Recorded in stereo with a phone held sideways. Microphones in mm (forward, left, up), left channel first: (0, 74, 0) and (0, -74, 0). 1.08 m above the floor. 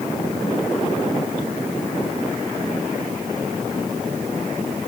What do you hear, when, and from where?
Only background noise.